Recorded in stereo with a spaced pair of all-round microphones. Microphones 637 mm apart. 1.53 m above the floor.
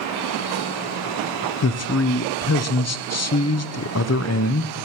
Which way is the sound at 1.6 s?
25° left (ahead or behind).